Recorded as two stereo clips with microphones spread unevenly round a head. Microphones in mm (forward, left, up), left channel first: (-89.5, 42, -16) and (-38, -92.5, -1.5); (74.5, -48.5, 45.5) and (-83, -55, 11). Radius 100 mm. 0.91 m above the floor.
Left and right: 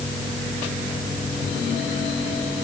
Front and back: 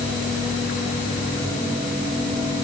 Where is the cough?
I don't hear a cough.